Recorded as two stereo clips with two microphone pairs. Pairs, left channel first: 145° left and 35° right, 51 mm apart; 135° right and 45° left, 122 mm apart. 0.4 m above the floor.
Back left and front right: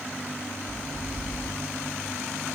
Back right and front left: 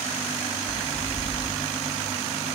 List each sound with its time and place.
0.7 s footsteps: 25° right, 4.5 m